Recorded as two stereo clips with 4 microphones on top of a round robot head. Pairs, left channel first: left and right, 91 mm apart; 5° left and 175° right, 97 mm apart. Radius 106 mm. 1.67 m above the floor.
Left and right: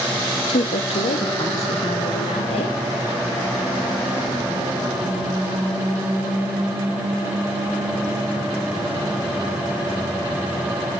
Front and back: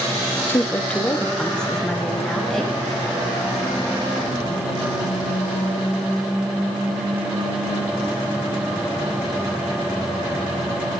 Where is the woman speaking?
70° left, 1.2 m; by 2.8 s 90° left, 4.5 m.